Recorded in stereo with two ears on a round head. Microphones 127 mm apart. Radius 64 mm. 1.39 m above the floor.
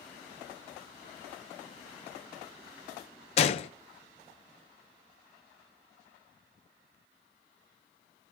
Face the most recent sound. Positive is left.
turn(degrees=45)  # may be behind; listen again after turning